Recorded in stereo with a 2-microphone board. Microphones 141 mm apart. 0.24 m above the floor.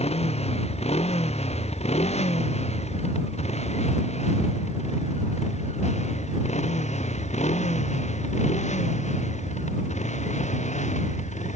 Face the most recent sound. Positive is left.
turn(degrees=55)  # may be behind; listen again after turning